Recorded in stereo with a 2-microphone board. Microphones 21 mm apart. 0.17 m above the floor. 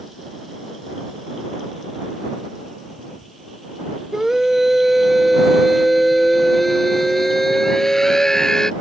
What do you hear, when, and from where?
4.1 s a scream: 25° right (ahead or behind); by 8.7 s 30° left (ahead or behind)